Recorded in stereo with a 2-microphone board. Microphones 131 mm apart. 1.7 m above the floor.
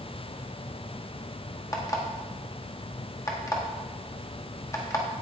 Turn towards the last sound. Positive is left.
turn(degrees=25)  # may be behind; listen again after turning